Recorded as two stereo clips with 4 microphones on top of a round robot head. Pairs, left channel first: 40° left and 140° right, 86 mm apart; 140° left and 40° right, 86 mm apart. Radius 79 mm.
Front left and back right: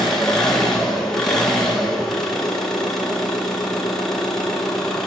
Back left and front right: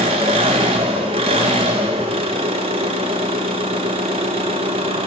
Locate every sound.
0.0 s an engine running: 50° right, 0.8 m